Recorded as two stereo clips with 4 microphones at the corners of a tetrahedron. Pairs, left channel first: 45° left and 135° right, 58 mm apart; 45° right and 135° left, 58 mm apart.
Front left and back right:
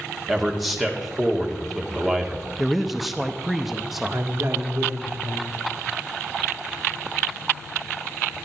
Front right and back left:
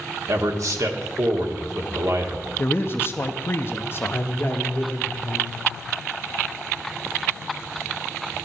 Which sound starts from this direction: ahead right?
A man speaking, at 2.6 s.